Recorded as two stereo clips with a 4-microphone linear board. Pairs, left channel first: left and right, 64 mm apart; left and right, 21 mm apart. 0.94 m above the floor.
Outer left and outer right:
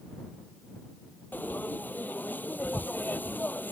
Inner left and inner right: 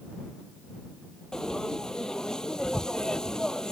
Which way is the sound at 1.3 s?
30° left (ahead or behind).